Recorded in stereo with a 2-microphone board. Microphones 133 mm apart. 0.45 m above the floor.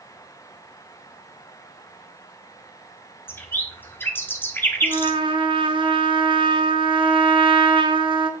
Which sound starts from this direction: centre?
A bird, at 3.3 s.